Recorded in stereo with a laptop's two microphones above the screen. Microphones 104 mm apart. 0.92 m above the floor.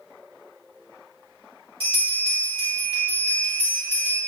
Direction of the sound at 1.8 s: 60° right (ahead or behind).